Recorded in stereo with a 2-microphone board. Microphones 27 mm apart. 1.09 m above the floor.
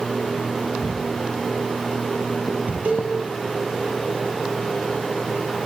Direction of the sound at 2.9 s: 65° right (ahead or behind).